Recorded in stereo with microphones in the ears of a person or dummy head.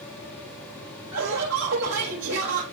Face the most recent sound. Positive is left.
turn(degrees=-75)  # may be behind; listen again after turning